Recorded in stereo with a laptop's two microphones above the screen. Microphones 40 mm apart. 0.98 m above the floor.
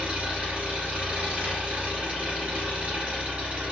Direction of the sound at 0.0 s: 40° right (ahead or behind).